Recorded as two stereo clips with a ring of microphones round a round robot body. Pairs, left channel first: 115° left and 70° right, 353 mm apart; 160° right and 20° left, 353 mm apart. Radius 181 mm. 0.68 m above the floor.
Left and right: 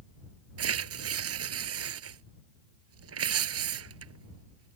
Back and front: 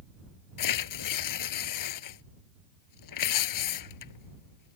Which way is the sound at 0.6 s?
120° right.